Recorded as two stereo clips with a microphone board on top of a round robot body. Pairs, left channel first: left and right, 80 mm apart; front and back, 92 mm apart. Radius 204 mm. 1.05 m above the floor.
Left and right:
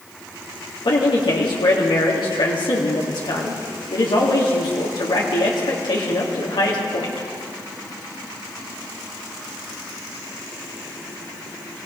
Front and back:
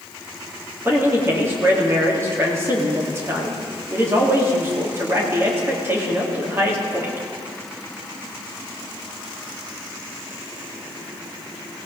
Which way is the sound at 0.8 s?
115° left.